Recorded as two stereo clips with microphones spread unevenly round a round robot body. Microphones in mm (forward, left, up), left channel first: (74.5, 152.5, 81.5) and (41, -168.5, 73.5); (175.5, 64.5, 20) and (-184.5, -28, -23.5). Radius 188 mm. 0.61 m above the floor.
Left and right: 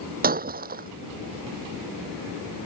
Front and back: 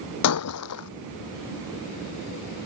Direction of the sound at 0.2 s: 35° right.